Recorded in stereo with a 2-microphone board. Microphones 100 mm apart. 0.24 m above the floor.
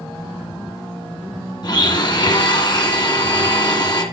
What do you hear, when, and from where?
1.6 s a blender: 45° left (ahead or behind), 1.9 m